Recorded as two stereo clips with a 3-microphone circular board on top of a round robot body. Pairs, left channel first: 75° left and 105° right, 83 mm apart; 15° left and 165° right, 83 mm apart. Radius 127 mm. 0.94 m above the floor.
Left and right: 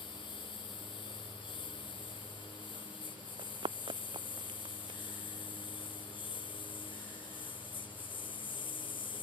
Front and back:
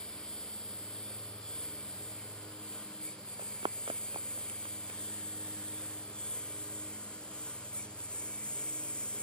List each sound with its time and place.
0.0 s a lawn mower: 95° left
3.4 s running footsteps: 135° right; by 5.0 s 140° right